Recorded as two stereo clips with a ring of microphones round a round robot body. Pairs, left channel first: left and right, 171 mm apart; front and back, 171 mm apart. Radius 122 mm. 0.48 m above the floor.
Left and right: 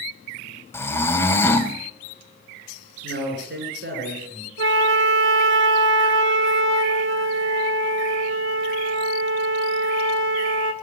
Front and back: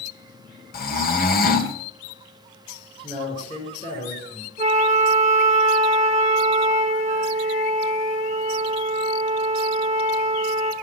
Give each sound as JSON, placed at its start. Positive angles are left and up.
{"t": 0.7, "sound": "snoring", "azimuth_deg": 15, "distance_m": 2.0}
{"t": 3.0, "sound": "a man speaking", "azimuth_deg": -70, "distance_m": 7.5}
{"t": 4.6, "sound": "a flute", "azimuth_deg": -115, "distance_m": 0.9}